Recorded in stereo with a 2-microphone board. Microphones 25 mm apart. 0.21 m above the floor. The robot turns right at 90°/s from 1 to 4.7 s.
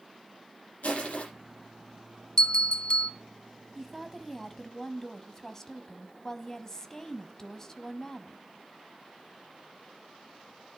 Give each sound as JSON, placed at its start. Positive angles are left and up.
{"t": 0.8, "sound": "crushing", "side_deg": 75, "distance_m": 6.0}
{"t": 2.4, "sound": "a bell", "azimuth_deg": 50, "distance_m": 0.7}
{"t": 3.8, "sound": "a woman speaking", "side_deg": -10, "distance_m": 1.0}